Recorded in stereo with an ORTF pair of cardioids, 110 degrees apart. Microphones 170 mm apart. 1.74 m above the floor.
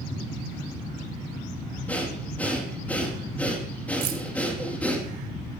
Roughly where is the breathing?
Ahead.